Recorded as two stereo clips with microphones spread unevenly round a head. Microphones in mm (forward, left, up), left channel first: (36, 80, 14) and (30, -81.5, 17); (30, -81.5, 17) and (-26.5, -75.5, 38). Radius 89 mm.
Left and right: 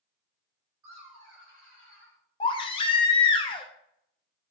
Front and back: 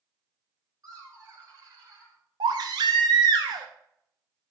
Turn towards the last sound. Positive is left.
turn(degrees=155)